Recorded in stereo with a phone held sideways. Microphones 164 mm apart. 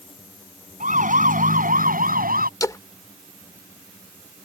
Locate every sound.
0.8 s a siren: 50° right (ahead or behind); by 2.5 s 60° right (ahead or behind)
2.6 s a splash: 20° left (ahead or behind)